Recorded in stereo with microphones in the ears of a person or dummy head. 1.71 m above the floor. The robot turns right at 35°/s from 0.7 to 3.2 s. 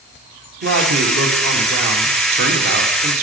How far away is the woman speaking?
About 1.7 m.